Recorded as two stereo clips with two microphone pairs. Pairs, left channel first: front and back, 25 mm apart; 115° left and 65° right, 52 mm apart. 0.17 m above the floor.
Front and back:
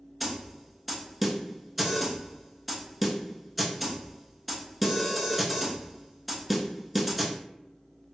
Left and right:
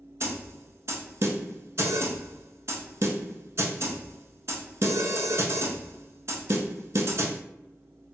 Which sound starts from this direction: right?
A snare drum, at 0.2 s.